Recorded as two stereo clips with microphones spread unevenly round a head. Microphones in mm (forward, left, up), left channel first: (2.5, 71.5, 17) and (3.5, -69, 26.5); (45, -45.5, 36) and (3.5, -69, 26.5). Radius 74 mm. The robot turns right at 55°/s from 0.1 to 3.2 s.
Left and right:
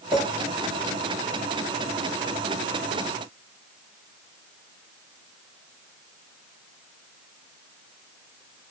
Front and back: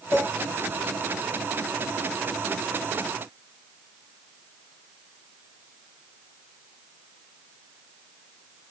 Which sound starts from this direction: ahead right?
A clink, at 0.1 s.